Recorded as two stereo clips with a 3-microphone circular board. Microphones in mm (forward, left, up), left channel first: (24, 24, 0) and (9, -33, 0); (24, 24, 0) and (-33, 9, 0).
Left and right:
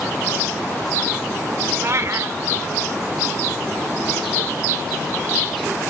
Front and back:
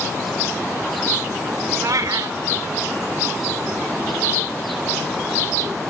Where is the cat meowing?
145° right, 0.6 m.